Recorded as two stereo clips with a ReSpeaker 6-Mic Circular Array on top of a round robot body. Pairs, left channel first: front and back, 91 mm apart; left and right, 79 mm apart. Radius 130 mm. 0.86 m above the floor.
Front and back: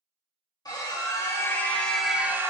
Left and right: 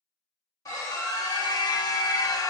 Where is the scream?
45° left, 1.4 m; by 2.5 s 125° left, 0.8 m.